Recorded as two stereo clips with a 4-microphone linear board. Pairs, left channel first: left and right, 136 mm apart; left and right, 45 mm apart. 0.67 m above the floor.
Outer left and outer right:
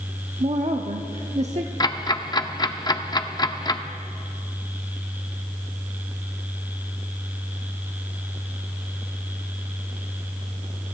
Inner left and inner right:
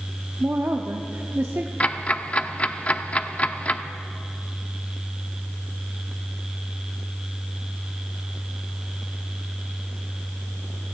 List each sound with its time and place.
0.4 s a woman speaking: 55° right (ahead or behind), 0.9 m
1.8 s ticking: 30° left (ahead or behind), 0.6 m